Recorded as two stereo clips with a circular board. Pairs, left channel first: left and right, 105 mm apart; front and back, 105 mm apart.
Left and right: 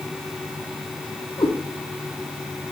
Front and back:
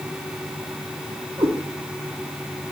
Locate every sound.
1.4 s a cat meowing: 130° left, 2.5 m